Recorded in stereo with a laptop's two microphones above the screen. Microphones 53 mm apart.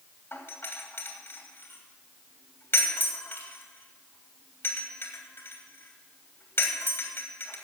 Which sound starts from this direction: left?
A doorbell, at 0.3 s.